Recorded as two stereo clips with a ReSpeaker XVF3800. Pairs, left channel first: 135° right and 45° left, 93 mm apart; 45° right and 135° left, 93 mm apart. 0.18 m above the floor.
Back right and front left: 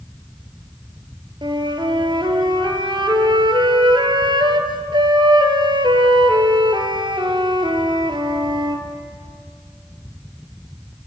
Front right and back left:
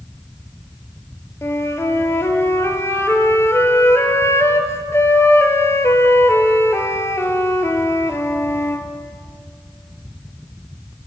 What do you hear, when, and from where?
1.4 s a flute: 15° left, 1.1 m